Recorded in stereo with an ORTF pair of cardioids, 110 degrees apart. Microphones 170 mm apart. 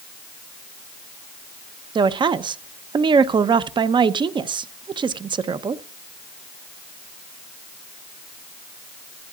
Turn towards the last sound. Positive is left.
turn(degrees=-30)